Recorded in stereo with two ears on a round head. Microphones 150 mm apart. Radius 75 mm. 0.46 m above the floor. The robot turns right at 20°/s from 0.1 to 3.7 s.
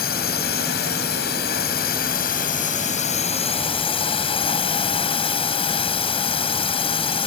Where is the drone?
70° left; by 7.3 s 140° left.